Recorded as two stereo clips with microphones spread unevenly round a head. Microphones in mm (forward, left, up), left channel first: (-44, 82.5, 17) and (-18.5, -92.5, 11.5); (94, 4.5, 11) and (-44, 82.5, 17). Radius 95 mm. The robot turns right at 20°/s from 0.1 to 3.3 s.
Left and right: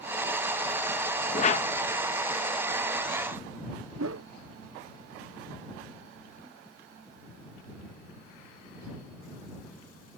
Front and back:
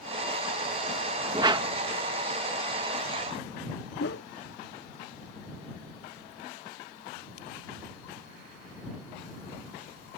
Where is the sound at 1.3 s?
105° left; by 1.7 s 115° left.